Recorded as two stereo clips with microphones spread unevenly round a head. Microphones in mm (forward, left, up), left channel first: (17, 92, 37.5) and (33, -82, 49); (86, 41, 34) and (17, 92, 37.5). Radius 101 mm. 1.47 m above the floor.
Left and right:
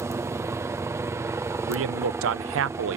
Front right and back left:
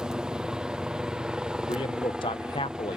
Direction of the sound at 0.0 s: 145° right.